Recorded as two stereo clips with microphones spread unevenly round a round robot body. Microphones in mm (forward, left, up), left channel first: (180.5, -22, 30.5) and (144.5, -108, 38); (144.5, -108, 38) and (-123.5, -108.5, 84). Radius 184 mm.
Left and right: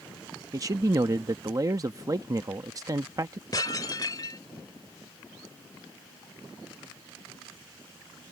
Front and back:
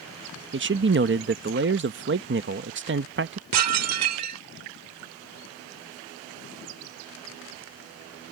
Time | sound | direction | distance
0.5 | a man speaking | 145° right | ?
3.5 | dishes clattering | 135° left | ?